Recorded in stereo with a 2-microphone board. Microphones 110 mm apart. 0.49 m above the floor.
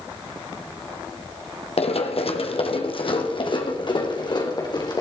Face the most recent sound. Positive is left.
turn(degrees=40)  # may be behind; listen again after turning